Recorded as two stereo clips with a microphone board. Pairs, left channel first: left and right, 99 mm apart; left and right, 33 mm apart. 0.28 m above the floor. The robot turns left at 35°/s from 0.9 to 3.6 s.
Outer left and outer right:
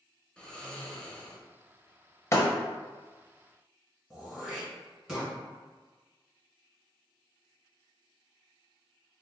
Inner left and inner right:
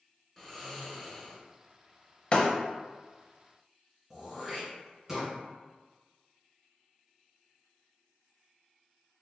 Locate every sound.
0.4 s snoring: 10° left (ahead or behind), 0.6 m; by 1.4 s 15° left (ahead or behind), 0.6 m
2.3 s breaking glass: 30° left (ahead or behind), 0.5 m
4.1 s throat clearing: 5° right (ahead or behind), 1.4 m